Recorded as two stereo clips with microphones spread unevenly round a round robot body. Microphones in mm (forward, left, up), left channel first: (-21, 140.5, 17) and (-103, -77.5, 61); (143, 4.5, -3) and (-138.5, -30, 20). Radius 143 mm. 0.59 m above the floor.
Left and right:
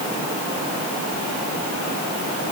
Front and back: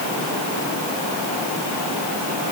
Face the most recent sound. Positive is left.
No sound to turn to.